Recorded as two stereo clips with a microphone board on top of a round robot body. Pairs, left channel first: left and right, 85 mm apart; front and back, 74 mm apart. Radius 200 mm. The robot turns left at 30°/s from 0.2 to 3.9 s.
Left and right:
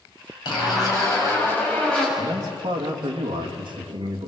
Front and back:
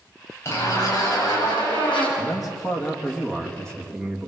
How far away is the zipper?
About 7.5 m.